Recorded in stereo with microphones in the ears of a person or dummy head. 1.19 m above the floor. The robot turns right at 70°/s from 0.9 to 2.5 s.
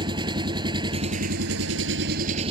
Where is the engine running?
145° right; by 2.5 s 35° right.